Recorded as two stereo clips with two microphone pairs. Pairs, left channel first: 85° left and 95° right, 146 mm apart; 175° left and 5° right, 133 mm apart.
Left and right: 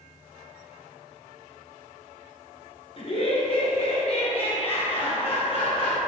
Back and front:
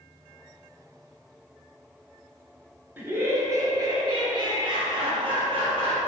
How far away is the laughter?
About 1.6 m.